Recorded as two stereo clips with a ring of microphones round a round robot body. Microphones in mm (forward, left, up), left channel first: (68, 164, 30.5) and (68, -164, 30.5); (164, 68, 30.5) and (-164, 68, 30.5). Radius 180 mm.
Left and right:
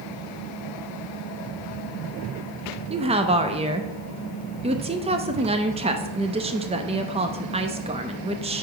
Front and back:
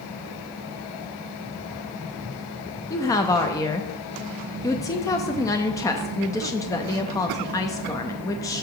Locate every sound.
2.9 s a woman speaking: 60° right, 0.5 m